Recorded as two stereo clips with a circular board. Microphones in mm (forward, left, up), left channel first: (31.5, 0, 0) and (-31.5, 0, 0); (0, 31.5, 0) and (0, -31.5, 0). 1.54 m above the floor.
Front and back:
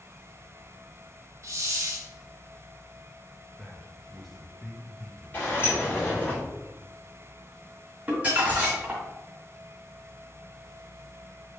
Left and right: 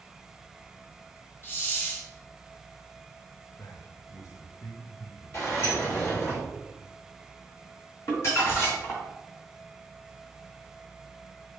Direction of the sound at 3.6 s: 90° left.